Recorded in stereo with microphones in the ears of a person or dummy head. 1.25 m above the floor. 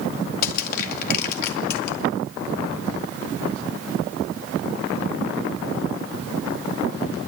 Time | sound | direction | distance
0.4 | crushing | 55° left (ahead or behind) | 2 m